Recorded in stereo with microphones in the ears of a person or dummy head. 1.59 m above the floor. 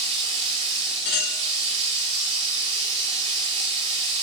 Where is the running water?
40° right (ahead or behind), 2.5 m.